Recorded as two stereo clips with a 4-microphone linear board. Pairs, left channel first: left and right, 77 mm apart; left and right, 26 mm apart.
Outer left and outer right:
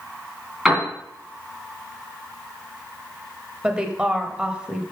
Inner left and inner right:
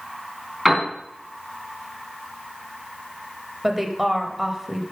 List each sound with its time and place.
0.7 s a piano: 10° right (ahead or behind), 3 m
3.6 s a woman speaking: 15° right (ahead or behind), 0.9 m